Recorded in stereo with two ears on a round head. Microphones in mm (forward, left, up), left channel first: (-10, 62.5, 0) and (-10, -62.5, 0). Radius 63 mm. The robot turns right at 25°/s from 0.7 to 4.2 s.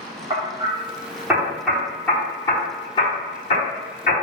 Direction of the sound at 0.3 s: 20° right (ahead or behind).